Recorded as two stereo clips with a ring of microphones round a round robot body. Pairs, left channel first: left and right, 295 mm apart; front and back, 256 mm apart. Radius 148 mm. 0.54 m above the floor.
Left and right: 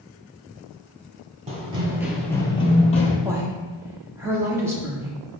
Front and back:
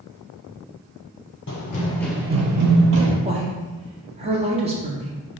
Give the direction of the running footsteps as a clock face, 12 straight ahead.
1 o'clock.